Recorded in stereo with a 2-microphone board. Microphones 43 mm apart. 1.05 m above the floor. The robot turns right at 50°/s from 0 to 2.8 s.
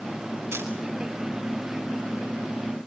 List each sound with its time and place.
0.5 s a camera shutter: 80° right, 4.5 m; by 0.7 s 85° right, 4.5 m